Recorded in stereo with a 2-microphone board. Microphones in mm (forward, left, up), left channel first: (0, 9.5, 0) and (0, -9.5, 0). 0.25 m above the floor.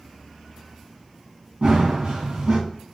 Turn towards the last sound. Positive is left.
turn(degrees=-70)  # may be behind; listen again after turning